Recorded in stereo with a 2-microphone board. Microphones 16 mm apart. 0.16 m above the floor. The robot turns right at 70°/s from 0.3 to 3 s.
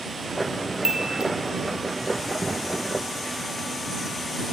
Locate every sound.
0.8 s a chime: 40° right (ahead or behind); by 1.3 s 75° right (ahead or behind)